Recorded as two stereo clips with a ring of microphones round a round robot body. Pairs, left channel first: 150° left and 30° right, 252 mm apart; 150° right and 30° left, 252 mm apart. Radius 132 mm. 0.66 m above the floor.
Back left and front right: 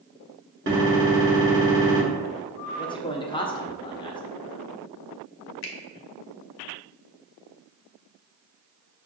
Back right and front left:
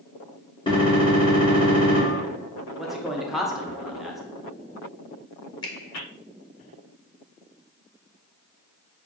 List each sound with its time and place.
0.7 s a gunshot: 80° right, 1.7 m
2.8 s a man speaking: 120° left, 0.6 m
5.6 s a finger snap: 140° left, 0.7 m